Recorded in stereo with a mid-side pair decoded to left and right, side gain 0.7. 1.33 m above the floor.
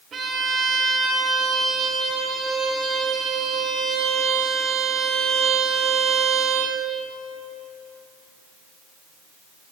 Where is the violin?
30° right, 1.1 m.